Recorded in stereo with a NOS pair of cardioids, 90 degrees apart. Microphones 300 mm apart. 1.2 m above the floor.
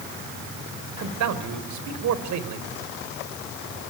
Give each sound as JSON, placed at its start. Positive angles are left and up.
{"t": 1.0, "sound": "a man speaking", "azimuth_deg": -70, "distance_m": 4.0}